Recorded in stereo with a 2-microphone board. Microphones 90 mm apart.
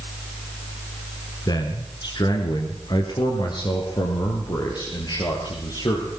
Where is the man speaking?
50° left (ahead or behind), 2.5 m; by 6.1 s 55° left (ahead or behind), 4.5 m.